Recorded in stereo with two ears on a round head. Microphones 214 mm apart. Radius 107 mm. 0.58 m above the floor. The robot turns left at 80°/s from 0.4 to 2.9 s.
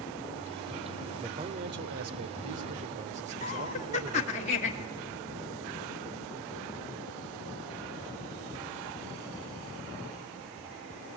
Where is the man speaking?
10° right, 1.9 m; by 4.4 s 145° right, 1.9 m.